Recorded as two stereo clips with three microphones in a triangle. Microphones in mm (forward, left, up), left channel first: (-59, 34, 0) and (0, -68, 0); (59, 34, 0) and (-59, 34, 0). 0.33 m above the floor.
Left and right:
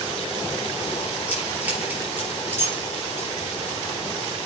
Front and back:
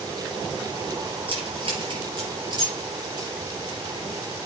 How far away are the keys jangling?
About 4.5 m.